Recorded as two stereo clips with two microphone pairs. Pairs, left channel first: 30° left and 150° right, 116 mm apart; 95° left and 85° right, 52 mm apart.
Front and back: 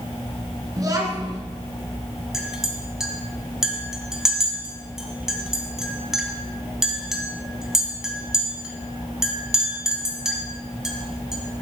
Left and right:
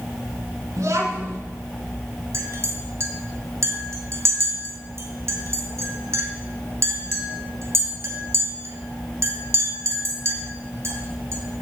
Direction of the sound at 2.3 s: 65° right.